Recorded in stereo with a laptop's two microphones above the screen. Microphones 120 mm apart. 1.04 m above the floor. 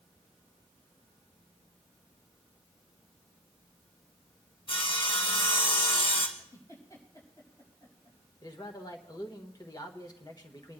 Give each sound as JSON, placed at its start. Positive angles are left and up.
{"t": 4.7, "sound": "sawing", "side_deg": 50, "distance_m": 1.8}
{"t": 6.4, "sound": "a giggle", "side_deg": 30, "distance_m": 5.5}
{"t": 8.4, "sound": "a man speaking", "side_deg": 35, "distance_m": 1.3}